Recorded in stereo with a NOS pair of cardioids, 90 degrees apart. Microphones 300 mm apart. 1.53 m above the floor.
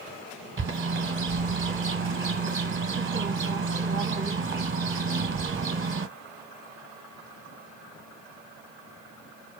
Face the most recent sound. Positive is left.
turn(degrees=-40)